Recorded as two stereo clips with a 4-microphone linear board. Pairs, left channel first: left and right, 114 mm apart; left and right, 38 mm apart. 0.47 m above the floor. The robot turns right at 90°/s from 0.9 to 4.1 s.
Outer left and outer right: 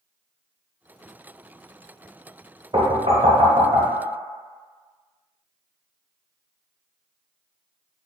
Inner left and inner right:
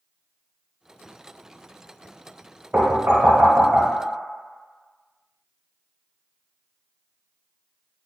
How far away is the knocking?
About 1.2 m.